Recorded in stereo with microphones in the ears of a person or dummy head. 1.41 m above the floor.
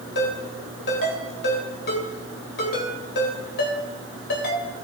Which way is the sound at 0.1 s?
65° left (ahead or behind).